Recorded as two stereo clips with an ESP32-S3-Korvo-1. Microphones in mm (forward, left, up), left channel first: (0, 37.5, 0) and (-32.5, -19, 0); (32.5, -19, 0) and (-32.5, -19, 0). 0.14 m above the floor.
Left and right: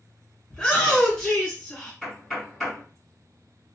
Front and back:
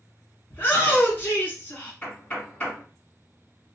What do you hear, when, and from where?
0.5 s a shout: 5° right, 1.5 m
2.0 s knocking: 20° right, 1.3 m